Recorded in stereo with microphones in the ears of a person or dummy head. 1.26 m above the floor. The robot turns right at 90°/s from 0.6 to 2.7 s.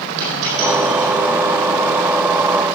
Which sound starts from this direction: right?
A dropped coin, at 0.2 s.